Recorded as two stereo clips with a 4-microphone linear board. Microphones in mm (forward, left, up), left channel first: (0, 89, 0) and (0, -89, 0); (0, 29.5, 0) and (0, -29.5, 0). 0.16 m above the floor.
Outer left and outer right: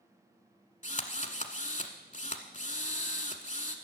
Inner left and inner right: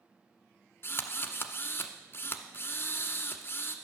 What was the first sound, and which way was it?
A drill, 40° left (ahead or behind).